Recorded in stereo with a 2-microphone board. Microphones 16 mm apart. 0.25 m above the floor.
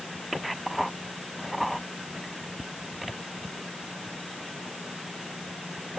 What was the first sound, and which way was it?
Only background noise.